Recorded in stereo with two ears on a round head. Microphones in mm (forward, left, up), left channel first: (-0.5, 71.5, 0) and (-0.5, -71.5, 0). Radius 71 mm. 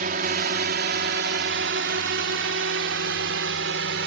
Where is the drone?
55° right (ahead or behind); by 4.1 s 80° right.